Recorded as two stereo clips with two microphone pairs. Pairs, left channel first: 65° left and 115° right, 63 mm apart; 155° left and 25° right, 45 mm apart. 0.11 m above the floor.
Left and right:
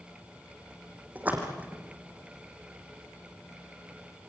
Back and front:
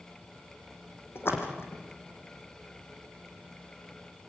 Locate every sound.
1.1 s a splash: straight behind, 4 m